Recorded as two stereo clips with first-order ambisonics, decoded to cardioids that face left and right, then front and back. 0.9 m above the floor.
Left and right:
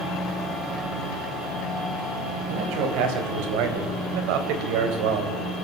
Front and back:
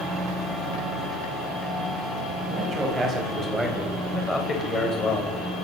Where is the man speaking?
110° right, 4.5 m; by 5.4 s 65° right, 3.5 m.